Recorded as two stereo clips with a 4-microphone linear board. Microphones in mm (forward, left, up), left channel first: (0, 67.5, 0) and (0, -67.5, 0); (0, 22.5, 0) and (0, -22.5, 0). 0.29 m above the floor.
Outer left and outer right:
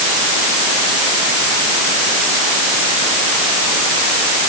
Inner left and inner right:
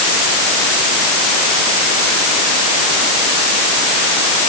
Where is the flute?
I don't hear a flute.